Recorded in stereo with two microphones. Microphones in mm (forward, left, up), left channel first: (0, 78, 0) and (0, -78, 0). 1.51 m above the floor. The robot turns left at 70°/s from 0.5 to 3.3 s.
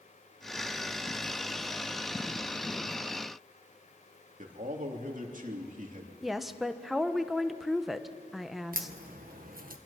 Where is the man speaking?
60° right (ahead or behind), 3 m.